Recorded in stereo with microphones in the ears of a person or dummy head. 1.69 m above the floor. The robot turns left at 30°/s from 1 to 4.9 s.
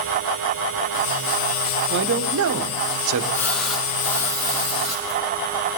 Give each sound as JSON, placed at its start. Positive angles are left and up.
{"t": 1.9, "sound": "a man speaking", "azimuth_deg": -65, "distance_m": 1.3}
{"t": 3.3, "sound": "a splash", "azimuth_deg": 10, "distance_m": 6.0}